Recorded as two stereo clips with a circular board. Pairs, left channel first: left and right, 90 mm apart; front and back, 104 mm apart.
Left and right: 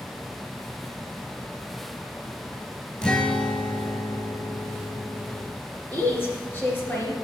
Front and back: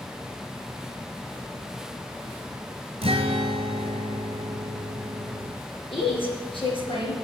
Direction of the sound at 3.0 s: 170° left.